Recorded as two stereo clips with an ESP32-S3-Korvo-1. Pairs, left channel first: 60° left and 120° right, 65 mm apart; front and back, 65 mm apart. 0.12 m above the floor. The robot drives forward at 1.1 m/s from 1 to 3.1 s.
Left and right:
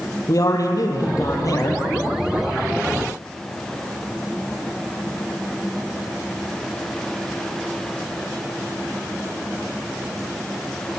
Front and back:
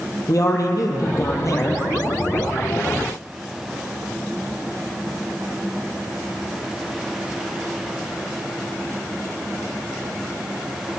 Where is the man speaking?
30° left, 4 m; by 1.8 s 40° left, 3 m.